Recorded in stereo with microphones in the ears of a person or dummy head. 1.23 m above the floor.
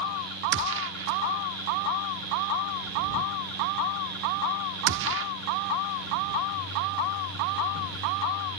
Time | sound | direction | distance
0.5 | a gunshot | 70° right (ahead or behind) | ?